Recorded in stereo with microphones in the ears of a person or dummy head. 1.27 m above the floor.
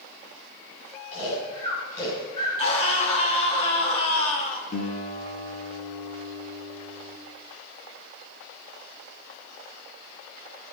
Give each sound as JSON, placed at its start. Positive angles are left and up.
{"t": 1.1, "sound": "snoring", "side_deg": 40, "distance_m": 8.5}
{"t": 2.6, "sound": "a scream", "side_deg": 40, "distance_m": 3.5}
{"t": 4.7, "sound": "a guitar", "side_deg": 60, "distance_m": 3.0}